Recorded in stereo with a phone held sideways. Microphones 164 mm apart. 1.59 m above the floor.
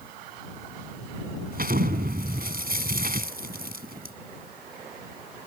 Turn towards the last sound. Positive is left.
turn(degrees=-65)  # may be behind; listen again after turning